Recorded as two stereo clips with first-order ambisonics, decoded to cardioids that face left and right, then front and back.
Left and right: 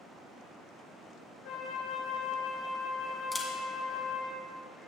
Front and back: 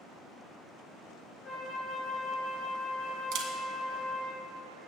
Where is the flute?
70° left, 2 m.